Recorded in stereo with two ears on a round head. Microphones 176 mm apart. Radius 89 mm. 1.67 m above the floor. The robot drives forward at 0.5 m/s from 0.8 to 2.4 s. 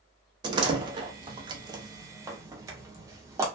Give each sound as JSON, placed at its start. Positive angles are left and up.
{"t": 0.4, "sound": "a door slam", "side_deg": -20, "distance_m": 0.5}